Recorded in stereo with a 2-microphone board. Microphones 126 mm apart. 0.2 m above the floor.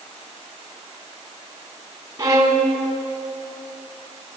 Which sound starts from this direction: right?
A violin, at 2.2 s.